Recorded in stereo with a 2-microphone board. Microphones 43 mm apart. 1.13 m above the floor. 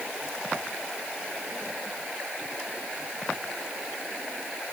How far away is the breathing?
I don't hear breathing.